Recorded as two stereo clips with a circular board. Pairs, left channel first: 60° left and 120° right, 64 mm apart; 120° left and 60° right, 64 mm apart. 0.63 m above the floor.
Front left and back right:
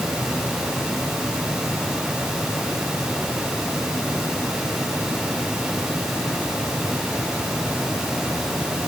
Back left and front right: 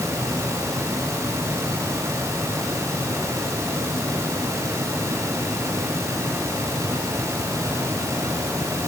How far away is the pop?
I don't hear a pop.